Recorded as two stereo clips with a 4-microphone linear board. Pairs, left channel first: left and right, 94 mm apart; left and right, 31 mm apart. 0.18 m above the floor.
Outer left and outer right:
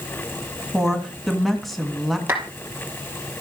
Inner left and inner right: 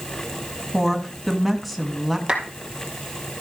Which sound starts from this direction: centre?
A woman speaking, at 0.7 s.